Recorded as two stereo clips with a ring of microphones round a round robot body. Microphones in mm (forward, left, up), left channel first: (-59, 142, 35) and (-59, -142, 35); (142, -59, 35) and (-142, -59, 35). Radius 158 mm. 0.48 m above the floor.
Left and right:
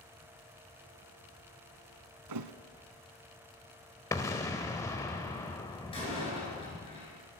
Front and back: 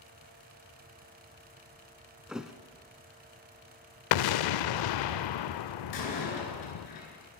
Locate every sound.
2.3 s a thud: 90° right, 0.7 m
4.1 s an explosion: 10° left, 0.5 m
5.9 s a door slam: 15° left, 4.5 m